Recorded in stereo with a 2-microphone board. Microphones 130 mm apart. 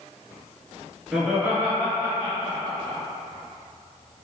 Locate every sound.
1.1 s laughter: 5° right (ahead or behind), 1.4 m; by 3.0 s 35° right (ahead or behind), 1.9 m